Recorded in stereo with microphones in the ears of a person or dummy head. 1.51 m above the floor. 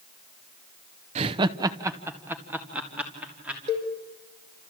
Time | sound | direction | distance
1.1 | laughter | 35° right (ahead or behind) | 0.6 m
3.7 | a cowbell | 35° right (ahead or behind) | 5 m